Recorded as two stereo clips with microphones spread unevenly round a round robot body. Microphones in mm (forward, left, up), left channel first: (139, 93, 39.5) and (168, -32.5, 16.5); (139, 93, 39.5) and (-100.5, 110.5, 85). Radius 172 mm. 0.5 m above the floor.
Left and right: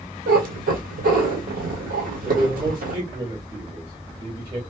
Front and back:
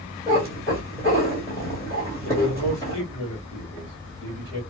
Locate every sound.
0.3 s a cat meowing: 90° right, 1.5 m
2.2 s a man speaking: 35° right, 2.5 m